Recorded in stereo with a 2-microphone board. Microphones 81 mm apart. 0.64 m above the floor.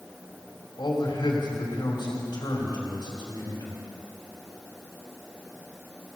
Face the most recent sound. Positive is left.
turn(degrees=70)  # may be behind; listen again after turning